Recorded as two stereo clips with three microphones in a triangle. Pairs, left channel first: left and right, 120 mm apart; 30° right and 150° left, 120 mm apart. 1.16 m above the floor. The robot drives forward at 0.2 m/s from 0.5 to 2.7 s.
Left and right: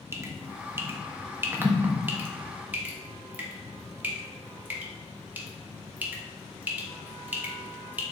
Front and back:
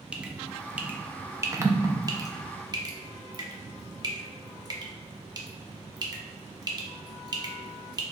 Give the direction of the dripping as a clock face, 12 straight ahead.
5 o'clock.